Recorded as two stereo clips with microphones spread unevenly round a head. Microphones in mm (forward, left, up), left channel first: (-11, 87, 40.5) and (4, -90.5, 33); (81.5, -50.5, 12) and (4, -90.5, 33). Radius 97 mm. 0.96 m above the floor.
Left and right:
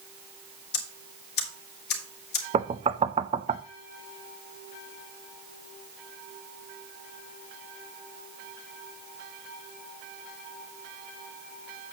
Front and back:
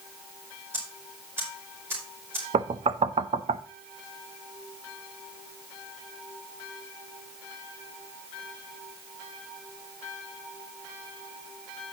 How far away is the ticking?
About 2.5 m.